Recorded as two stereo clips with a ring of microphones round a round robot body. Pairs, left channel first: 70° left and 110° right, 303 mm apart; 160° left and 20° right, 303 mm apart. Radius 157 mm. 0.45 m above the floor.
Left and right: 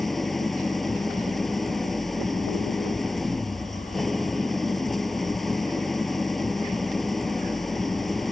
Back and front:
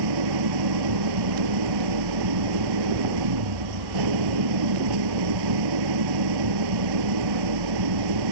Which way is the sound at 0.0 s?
20° right.